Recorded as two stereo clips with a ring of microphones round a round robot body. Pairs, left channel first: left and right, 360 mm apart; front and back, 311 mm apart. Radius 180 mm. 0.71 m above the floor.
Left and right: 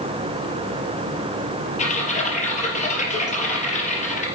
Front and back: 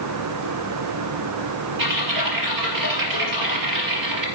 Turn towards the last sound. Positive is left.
turn(degrees=160)